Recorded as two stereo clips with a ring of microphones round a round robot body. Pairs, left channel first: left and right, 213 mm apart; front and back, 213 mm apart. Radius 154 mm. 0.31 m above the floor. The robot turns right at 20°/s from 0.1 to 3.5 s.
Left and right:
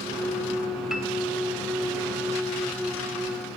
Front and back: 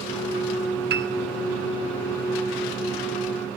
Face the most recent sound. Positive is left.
turn(degrees=-125)